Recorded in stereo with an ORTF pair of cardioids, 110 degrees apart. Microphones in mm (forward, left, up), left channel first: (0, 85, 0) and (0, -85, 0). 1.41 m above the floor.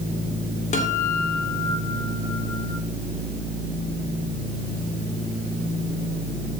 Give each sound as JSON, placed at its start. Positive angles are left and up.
{"t": 0.7, "sound": "a guitar", "azimuth_deg": 45, "distance_m": 2.5}